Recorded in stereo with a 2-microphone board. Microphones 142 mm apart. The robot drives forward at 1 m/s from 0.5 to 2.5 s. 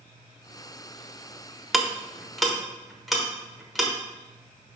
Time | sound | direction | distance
1.7 | ticking | centre (ahead or behind) | 0.5 m